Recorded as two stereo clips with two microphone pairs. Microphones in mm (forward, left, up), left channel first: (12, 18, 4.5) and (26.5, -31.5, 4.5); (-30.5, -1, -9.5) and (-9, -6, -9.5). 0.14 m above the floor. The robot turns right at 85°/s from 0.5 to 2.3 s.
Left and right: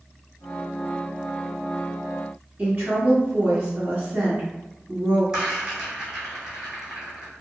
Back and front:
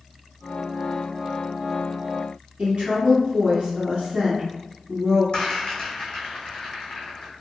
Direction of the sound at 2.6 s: 30° right.